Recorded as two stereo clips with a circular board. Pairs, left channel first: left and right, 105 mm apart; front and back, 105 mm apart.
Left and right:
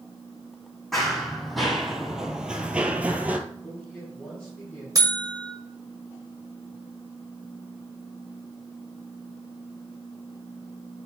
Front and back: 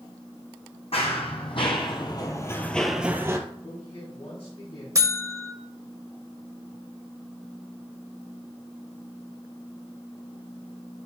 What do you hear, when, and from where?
0.9 s running footsteps: straight ahead, 2.0 m; by 3.4 s 155° right, 0.9 m
3.6 s a man speaking: 10° left, 4 m
5.0 s a buzzer: 130° right, 0.7 m